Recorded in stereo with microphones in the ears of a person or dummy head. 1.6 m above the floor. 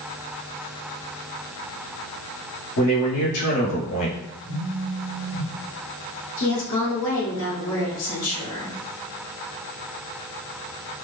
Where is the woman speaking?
80° left, 1.8 m.